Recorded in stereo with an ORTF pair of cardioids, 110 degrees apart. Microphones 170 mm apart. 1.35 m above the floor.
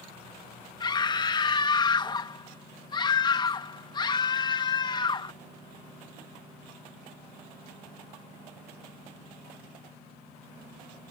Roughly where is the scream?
Ahead left.